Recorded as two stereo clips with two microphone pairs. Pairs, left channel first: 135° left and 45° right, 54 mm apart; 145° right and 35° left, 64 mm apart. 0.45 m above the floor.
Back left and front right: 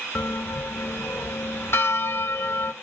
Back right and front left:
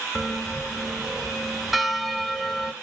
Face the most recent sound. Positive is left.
turn(degrees=120)